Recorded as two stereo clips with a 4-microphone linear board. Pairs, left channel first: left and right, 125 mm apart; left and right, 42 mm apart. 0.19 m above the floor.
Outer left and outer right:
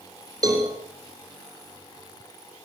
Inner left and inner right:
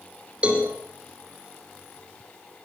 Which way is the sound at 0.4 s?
30° right (ahead or behind).